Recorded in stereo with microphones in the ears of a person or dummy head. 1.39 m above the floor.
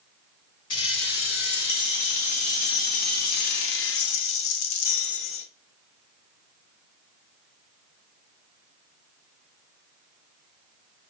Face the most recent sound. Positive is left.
turn(degrees=70)  # may be behind; listen again after turning